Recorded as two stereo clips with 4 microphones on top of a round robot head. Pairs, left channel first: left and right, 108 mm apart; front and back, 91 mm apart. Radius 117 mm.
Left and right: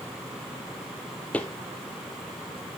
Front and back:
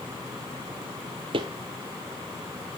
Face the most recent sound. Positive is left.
turn(degrees=165)